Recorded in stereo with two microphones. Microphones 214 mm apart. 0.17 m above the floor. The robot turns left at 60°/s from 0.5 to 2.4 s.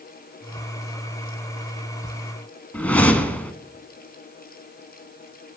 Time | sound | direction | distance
2.7 | a whoosh | 5° left (ahead or behind) | 0.7 m